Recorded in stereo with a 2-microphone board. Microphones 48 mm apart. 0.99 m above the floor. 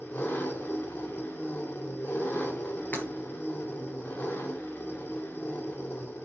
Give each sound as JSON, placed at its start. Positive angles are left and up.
{"t": 0.0, "sound": "an engine running", "side_deg": 50, "distance_m": 2.5}
{"t": 2.9, "sound": "breaking glass", "side_deg": 45, "distance_m": 4.0}